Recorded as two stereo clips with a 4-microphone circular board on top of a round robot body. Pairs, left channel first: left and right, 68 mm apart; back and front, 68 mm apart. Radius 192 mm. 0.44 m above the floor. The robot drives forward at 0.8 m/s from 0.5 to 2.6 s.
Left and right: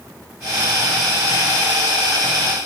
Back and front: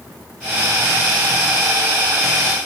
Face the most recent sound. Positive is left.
No sound to turn to.